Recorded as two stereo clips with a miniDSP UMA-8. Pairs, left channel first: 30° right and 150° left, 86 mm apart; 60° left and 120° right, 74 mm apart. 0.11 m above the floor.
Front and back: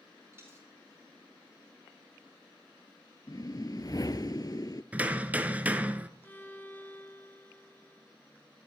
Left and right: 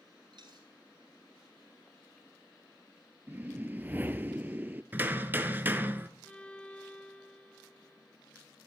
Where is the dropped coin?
145° right, 4.5 m.